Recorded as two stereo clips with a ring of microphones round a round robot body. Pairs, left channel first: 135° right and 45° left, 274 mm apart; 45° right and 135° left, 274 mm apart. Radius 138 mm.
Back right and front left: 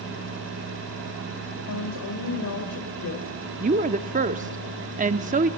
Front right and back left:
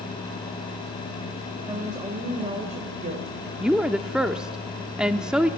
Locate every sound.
1.7 s a woman speaking: 150° right, 2.5 m; by 3.3 s 170° right, 2.5 m
3.6 s a woman speaking: 50° left, 0.7 m